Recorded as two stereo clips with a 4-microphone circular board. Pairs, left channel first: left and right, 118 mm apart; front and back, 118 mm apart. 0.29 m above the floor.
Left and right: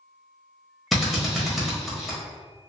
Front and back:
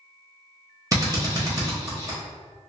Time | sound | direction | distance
0.9 | a drill | 175° right | 1.0 m